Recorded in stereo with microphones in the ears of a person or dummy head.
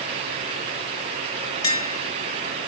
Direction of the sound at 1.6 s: 20° left (ahead or behind).